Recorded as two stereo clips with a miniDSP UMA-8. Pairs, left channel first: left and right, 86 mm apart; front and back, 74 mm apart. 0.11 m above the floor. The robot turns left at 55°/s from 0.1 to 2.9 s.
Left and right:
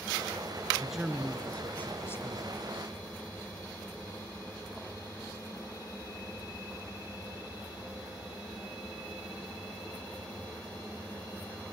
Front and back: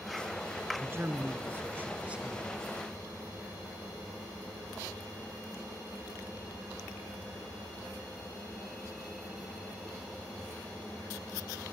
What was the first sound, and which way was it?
A man speaking, 165° right.